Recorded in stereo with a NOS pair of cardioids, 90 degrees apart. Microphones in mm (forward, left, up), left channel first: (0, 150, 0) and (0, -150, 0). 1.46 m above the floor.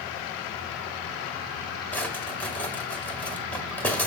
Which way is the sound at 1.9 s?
5° left.